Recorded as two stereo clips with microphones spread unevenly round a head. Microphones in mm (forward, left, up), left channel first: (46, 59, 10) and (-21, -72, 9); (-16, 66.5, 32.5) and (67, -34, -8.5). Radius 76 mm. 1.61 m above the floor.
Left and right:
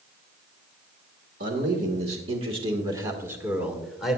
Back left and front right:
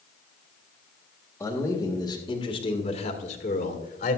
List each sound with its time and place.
1.4 s a man speaking: 155° right, 1.8 m; by 4.2 s 150° left, 1.9 m